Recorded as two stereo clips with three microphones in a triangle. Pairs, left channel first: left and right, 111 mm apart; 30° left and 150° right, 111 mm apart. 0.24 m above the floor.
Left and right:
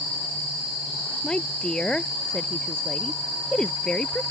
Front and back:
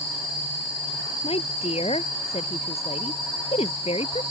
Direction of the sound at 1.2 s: 10° left.